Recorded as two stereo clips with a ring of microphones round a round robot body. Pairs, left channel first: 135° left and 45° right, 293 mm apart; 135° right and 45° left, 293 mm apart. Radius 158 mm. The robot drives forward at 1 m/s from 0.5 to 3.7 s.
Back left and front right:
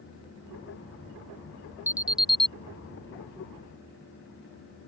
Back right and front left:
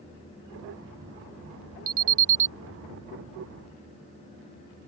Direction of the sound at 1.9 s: 35° left.